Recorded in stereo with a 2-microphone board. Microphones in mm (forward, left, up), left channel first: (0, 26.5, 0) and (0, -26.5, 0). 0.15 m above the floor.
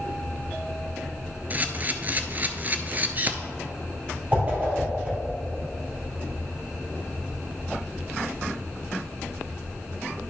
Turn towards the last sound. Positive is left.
turn(degrees=-30)  # may be behind; listen again after turning